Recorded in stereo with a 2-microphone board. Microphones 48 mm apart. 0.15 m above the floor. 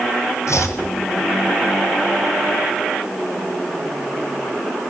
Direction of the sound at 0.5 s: 80° left.